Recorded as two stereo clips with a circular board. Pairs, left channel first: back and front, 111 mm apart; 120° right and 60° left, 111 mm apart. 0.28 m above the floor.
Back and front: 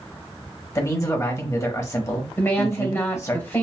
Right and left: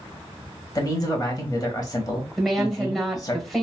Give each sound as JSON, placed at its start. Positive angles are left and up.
{"t": 0.8, "sound": "a man speaking", "azimuth_deg": -145, "distance_m": 1.0}
{"t": 2.4, "sound": "a woman speaking", "azimuth_deg": 150, "distance_m": 1.3}